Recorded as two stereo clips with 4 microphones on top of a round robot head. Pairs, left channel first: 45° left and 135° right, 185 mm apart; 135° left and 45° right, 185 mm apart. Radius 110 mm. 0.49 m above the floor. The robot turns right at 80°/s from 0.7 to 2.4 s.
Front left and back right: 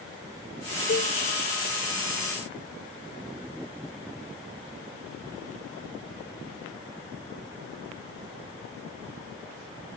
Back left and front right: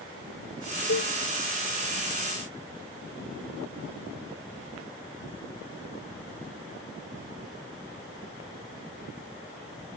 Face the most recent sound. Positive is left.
turn(degrees=-145)